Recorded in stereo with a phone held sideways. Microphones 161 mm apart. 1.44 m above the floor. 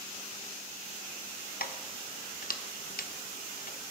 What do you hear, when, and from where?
1.6 s keys jangling: 65° left (ahead or behind), 1.0 m